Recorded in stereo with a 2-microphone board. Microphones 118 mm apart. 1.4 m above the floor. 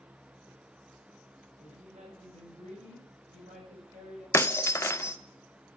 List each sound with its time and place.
1.6 s a woman speaking: 75° right (ahead or behind), 6 m; by 4.2 s 85° right, 7.5 m
4.3 s breaking glass: 25° left (ahead or behind), 0.5 m